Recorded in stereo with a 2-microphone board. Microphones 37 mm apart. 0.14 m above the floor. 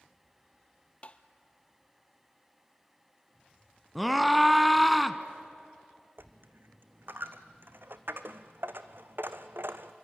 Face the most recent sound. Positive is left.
turn(degrees=-70)  # may be behind; listen again after turning